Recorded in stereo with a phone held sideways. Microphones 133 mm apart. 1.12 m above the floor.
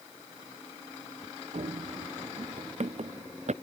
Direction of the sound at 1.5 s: 60° right (ahead or behind).